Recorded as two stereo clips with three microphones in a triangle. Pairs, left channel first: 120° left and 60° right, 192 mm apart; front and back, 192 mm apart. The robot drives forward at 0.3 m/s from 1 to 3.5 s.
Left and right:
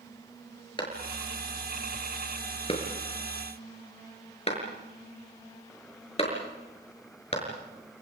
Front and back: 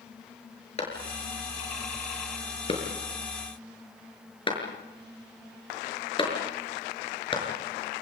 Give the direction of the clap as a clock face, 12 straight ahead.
10 o'clock.